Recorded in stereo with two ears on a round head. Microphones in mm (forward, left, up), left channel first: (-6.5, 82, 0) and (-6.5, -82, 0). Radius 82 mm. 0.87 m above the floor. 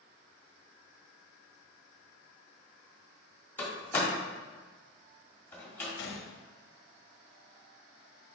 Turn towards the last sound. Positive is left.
turn(degrees=70)  # may be behind; listen again after turning